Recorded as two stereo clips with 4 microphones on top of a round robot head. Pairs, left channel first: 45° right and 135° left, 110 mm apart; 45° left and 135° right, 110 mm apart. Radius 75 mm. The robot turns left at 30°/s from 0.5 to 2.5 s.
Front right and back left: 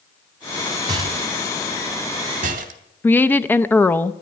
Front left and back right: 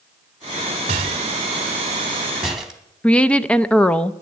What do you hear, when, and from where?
0.9 s a rattle: 170° right, 1.1 m; by 2.8 s 140° left, 1.1 m
3.0 s a woman speaking: 10° right, 0.6 m